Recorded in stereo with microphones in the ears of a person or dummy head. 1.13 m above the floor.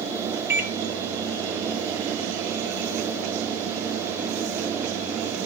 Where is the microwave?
15° right (ahead or behind), 0.6 m.